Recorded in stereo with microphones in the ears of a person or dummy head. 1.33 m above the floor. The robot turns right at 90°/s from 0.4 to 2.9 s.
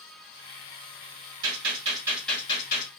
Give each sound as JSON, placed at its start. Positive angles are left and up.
{"t": 1.4, "sound": "a gunshot", "azimuth_deg": -75, "distance_m": 1.8}